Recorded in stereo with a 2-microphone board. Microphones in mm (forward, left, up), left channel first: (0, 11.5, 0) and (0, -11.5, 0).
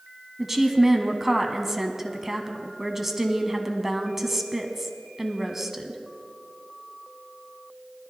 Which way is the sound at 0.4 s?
20° right (ahead or behind).